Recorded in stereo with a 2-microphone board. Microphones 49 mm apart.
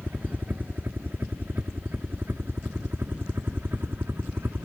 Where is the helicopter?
40° right (ahead or behind); by 4.7 s 50° right (ahead or behind).